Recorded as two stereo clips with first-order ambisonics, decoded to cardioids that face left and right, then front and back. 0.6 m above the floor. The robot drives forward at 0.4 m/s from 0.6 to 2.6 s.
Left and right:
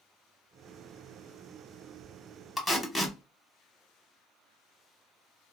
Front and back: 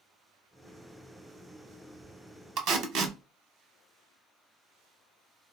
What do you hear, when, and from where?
2.6 s tape being pulled: 175° left, 0.5 m